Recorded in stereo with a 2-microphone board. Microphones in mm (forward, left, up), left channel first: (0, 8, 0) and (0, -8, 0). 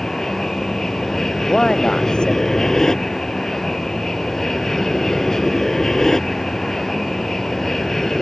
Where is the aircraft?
40° left (ahead or behind); by 8.2 s 30° left (ahead or behind).